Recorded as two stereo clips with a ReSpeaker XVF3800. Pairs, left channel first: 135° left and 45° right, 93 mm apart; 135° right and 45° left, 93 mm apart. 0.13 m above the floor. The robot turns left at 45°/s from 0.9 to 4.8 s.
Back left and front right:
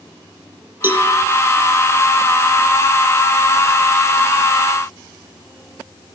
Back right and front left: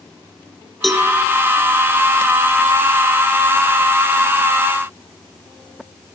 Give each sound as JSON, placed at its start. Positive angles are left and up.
{"t": 0.8, "sound": "a cowbell", "azimuth_deg": -45, "distance_m": 1.4}